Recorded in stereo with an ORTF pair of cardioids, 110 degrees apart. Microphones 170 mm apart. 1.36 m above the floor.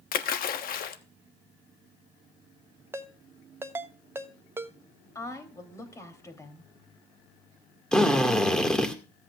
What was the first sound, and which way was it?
A splash, 60° left.